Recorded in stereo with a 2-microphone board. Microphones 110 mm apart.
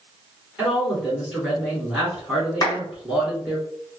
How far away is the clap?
About 1.5 m.